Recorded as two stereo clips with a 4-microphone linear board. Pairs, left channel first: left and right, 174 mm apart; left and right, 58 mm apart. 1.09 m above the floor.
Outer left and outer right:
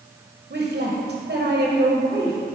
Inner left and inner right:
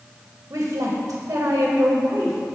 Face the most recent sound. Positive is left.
turn(degrees=-65)  # may be behind; listen again after turning